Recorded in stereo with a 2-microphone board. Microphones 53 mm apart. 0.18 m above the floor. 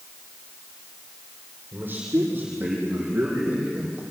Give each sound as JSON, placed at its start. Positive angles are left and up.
{"t": 1.7, "sound": "a man speaking", "side_deg": -35, "distance_m": 6.5}